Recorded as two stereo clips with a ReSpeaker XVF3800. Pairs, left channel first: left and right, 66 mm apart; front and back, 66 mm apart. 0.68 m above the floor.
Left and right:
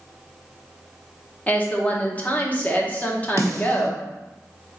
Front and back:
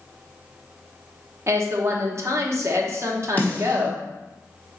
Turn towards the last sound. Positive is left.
turn(degrees=-65)